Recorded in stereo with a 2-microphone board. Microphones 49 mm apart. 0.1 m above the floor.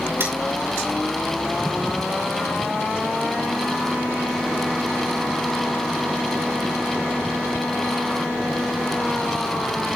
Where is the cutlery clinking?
55° right (ahead or behind), 6 m.